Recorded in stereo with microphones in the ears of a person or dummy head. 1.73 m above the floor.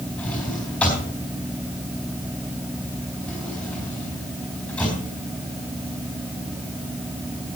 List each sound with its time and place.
0.2 s a drawer: 10° left (ahead or behind), 4 m